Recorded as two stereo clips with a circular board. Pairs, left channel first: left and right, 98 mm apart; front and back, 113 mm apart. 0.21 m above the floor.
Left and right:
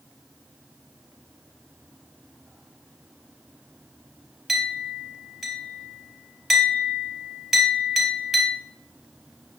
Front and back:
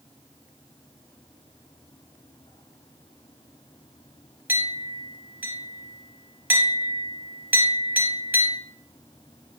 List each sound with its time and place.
4.5 s a clink: 175° right, 1.0 m